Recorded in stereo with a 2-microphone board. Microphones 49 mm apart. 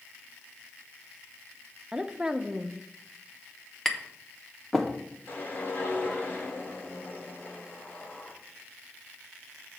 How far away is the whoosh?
About 2.0 m.